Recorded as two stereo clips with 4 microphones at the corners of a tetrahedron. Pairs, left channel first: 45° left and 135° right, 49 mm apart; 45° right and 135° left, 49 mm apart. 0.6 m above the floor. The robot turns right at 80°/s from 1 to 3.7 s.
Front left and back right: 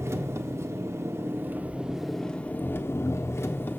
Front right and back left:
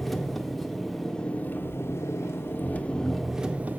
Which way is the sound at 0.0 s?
130° right.